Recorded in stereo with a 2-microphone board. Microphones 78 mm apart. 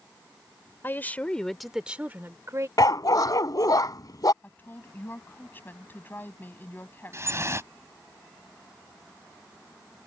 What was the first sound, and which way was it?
A woman speaking, 30° left (ahead or behind).